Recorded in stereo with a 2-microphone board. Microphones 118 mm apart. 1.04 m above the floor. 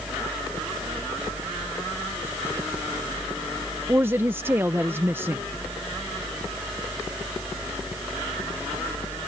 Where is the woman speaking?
20° right (ahead or behind).